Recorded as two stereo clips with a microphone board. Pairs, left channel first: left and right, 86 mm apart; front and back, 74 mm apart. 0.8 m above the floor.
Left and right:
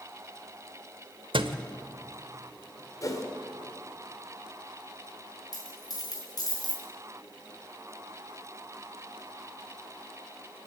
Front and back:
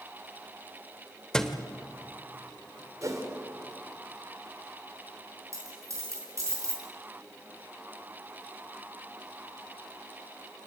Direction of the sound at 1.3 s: 80° right.